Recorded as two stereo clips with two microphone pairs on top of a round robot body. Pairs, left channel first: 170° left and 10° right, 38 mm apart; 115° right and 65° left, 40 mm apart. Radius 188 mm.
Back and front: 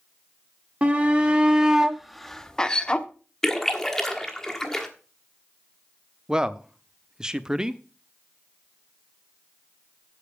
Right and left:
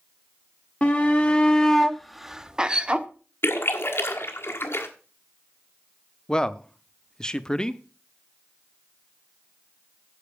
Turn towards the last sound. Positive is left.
turn(degrees=-60)